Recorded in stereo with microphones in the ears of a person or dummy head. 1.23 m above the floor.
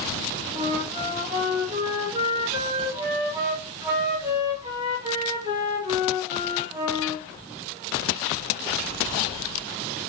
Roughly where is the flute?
Right.